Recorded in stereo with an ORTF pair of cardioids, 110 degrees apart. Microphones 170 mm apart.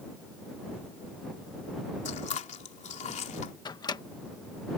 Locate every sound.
2.0 s chewing: 45° left
3.6 s a microwave: 25° left